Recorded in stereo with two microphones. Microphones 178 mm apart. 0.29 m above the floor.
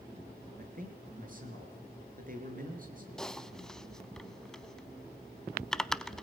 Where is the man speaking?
55° right (ahead or behind), 5 m.